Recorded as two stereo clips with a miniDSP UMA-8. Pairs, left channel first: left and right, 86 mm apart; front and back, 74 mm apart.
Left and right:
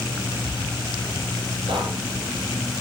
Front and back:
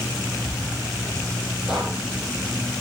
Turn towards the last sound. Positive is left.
turn(degrees=-100)